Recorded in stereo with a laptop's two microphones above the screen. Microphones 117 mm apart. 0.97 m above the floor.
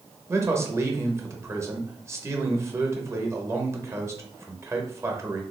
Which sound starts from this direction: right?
A man speaking, at 0.3 s.